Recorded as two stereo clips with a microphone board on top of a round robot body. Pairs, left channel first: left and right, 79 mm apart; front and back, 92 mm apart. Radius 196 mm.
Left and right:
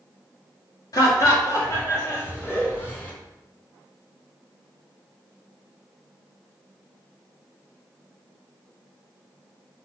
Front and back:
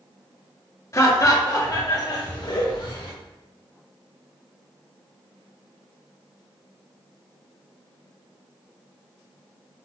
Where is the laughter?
55° left, 2.5 m; by 3.1 s 25° left, 3.5 m.